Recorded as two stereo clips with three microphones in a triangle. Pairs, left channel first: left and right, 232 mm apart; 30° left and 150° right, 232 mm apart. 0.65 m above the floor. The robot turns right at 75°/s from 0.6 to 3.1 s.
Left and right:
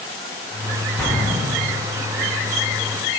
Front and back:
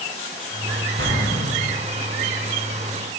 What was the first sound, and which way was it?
An explosion, 170° left.